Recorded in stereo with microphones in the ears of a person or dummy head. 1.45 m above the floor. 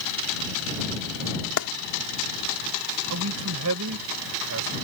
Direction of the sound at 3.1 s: 85° right.